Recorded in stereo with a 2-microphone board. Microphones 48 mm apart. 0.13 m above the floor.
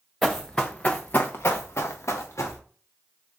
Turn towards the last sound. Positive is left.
turn(degrees=80)